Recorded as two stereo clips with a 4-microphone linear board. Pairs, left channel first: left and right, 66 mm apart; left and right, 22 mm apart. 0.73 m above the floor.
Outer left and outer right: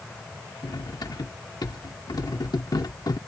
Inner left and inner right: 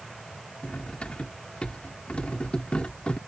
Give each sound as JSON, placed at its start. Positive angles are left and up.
{"t": 0.6, "sound": "cutlery clinking", "side_deg": 75}